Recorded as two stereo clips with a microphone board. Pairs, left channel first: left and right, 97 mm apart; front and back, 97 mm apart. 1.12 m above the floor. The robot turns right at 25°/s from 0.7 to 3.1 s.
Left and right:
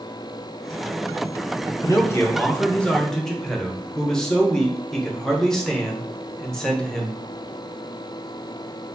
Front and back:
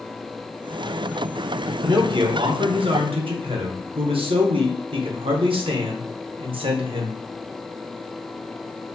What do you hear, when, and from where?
1.8 s a man speaking: 140° left, 0.9 m; by 7.2 s 175° left, 0.9 m